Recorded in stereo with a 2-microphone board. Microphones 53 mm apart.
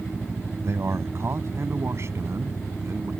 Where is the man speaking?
60° right (ahead or behind).